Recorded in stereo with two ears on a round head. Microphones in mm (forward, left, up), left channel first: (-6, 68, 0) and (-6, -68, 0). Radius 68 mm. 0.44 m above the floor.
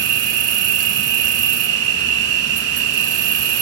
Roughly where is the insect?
Right.